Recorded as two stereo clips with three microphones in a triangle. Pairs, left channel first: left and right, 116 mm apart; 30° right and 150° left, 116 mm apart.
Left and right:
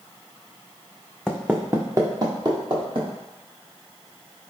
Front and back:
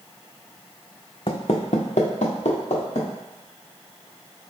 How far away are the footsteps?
About 0.5 m.